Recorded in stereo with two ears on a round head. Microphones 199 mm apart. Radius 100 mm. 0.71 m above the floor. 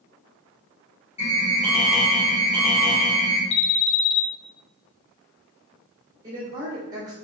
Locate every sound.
1.2 s an alarm: 25° left (ahead or behind), 1.5 m
3.5 s an alarm: 55° left (ahead or behind), 0.6 m
6.2 s a woman speaking: 20° right (ahead or behind), 1.8 m